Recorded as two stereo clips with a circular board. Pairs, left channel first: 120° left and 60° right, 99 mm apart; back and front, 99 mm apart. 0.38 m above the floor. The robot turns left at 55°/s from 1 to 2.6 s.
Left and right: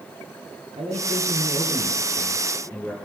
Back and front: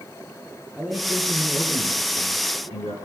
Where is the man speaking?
80° right, 8 m; by 3.0 s 170° right, 8 m.